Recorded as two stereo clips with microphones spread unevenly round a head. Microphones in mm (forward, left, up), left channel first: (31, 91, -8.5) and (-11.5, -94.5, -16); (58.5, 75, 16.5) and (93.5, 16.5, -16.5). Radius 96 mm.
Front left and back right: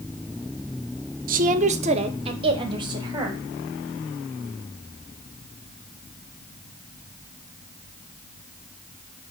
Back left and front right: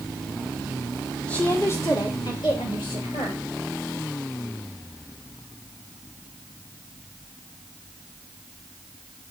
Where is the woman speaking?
145° right, 0.7 m; by 3.4 s 175° right, 1.8 m.